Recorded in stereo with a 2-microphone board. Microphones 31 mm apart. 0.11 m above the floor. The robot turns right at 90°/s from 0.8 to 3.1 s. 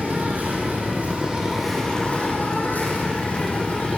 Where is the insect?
80° right, 6.5 m; by 4.0 s 130° left, 6.5 m.